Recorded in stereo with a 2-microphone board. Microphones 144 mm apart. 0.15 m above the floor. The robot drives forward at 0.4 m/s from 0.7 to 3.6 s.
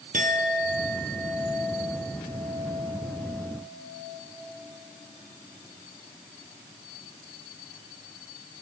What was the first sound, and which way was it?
A clink, 65° right (ahead or behind).